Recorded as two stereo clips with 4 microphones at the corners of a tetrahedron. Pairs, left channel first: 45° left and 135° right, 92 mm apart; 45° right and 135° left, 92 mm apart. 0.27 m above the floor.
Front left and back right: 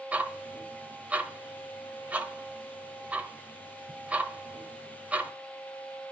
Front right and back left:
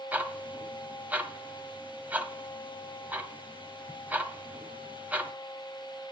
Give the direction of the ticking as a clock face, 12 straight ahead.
6 o'clock.